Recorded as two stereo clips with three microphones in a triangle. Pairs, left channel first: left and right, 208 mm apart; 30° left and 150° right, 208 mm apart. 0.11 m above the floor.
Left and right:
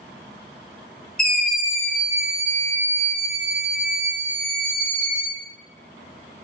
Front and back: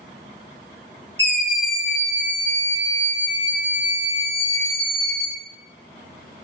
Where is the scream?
95° left, 1.8 m; by 5.3 s 35° right, 1.9 m.